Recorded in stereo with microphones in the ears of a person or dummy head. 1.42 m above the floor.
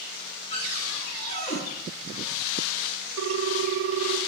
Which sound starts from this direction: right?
A ringtone, at 3.2 s.